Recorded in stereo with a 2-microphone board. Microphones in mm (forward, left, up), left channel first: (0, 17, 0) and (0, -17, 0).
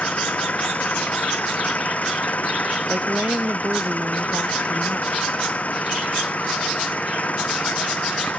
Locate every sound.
0.0 s an engine running: 50° left (ahead or behind)
2.9 s a woman speaking: 60° right (ahead or behind)